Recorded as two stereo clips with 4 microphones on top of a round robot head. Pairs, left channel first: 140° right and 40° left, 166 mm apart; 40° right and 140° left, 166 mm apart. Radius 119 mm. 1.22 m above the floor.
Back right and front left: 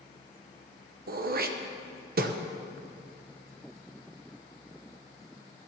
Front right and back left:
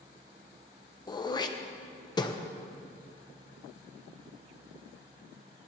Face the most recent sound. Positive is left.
turn(degrees=20)